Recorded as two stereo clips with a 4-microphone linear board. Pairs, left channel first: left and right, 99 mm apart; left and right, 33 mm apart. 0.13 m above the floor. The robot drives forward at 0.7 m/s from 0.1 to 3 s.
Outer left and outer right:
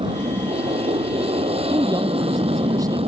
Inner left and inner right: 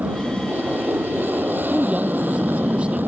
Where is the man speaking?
40° right (ahead or behind); by 3.0 s 35° right (ahead or behind).